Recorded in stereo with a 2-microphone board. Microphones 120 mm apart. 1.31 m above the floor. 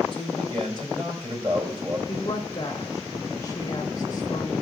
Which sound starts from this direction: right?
A man speaking, at 0.1 s.